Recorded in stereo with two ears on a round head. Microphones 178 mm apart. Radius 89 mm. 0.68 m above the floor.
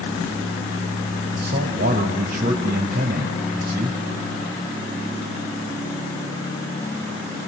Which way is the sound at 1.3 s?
55° right (ahead or behind).